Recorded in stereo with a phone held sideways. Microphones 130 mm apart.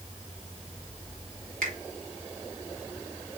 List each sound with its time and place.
1.6 s a finger snap: 80° right, 1.8 m